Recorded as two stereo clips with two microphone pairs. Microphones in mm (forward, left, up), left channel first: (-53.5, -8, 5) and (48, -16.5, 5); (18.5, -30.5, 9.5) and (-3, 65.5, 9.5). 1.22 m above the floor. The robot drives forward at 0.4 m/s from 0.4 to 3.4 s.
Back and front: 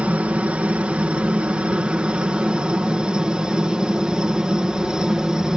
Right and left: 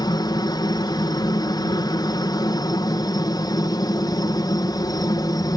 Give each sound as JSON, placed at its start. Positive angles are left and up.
{"t": 0.0, "sound": "a helicopter", "azimuth_deg": -75}